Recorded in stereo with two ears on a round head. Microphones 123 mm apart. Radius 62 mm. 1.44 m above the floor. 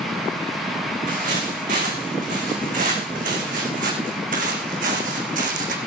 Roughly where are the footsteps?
Right.